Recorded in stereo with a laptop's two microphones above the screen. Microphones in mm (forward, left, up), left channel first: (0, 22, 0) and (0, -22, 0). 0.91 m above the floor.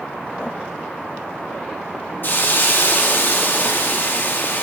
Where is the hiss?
50° left (ahead or behind), 0.9 m.